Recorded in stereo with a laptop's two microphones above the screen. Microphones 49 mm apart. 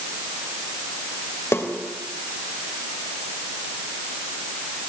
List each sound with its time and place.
1.5 s a snare drum: 60° left (ahead or behind), 3.5 m